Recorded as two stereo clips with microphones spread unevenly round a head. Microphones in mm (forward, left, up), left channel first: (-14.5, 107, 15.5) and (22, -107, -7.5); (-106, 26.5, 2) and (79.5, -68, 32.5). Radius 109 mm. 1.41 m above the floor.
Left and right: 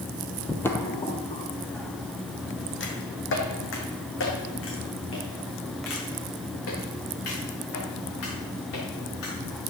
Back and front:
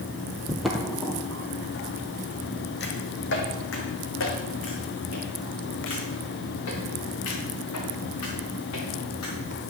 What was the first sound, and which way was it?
Footsteps, 35° left.